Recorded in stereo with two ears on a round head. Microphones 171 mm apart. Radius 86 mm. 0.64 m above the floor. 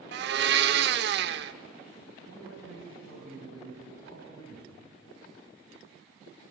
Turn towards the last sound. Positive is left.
turn(degrees=-80)